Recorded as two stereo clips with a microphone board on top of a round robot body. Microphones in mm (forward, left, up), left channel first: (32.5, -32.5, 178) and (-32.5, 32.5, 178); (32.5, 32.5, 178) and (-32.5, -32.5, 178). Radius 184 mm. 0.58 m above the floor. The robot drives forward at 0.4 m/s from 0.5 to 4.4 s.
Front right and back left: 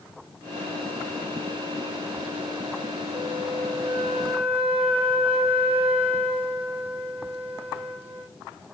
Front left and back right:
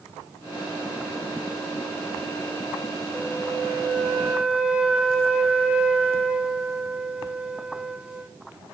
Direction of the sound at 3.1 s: 135° left.